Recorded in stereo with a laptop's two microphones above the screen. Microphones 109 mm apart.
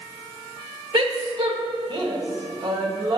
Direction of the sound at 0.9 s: 45° right (ahead or behind).